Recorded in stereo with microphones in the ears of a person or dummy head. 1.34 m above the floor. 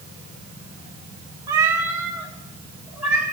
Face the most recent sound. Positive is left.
turn(degrees=-10)  # may be behind; listen again after turning